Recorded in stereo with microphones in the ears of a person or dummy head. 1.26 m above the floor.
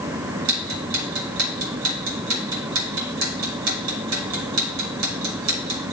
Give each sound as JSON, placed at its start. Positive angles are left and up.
{"t": 0.5, "sound": "ticking", "side_deg": -80, "distance_m": 2.0}